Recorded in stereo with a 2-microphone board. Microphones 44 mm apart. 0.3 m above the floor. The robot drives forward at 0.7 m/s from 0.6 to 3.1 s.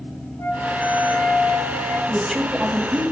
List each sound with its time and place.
0.4 s a flute: 75° left (ahead or behind), 1.2 m; by 2.0 s 45° left (ahead or behind), 1.6 m
2.1 s a woman speaking: 10° right (ahead or behind), 1.4 m